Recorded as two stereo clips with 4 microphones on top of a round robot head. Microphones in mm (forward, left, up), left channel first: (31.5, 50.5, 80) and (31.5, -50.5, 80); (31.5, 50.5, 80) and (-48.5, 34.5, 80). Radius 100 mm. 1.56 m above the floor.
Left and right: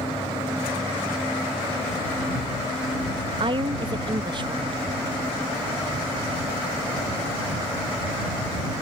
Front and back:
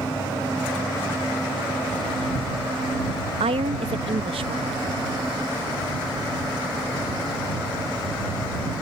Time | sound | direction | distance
3.4 | a woman speaking | 140° right | ?